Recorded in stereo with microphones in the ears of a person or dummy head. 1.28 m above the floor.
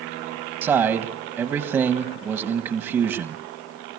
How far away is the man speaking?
About 1.3 m.